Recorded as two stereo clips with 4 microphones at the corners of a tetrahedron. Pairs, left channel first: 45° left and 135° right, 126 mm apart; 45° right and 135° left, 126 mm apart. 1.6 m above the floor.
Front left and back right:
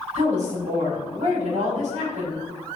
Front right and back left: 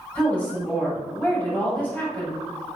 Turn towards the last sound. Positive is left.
turn(degrees=-120)